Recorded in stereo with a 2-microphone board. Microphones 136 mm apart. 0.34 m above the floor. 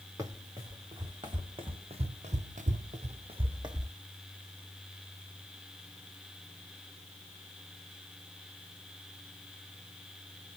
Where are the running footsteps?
25° right (ahead or behind), 2.0 m; by 3.9 s 30° right (ahead or behind), 1.1 m.